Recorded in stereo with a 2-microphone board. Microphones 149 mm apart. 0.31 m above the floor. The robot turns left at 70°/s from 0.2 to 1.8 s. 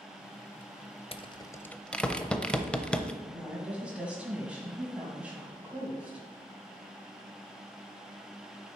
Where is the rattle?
40° left (ahead or behind), 0.5 m; by 3.1 s 5° left (ahead or behind), 0.5 m.